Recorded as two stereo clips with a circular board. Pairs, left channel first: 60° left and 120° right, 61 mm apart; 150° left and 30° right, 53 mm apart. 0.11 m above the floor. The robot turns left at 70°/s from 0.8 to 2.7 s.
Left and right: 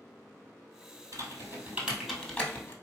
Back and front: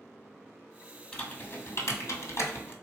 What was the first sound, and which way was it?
Typing on a keyboard, 140° right.